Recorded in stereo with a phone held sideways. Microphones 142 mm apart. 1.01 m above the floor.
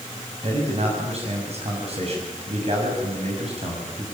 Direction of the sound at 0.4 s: 50° right (ahead or behind).